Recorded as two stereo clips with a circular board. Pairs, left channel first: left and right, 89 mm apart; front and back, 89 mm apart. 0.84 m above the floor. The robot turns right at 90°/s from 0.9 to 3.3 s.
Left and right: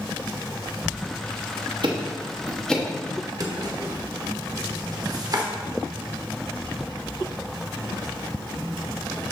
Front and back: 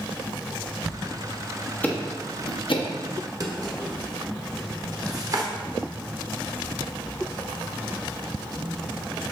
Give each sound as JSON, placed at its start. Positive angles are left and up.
{"t": 1.8, "sound": "ticking", "azimuth_deg": -70, "distance_m": 1.0}
{"t": 3.4, "sound": "a drawer", "azimuth_deg": -135, "distance_m": 1.1}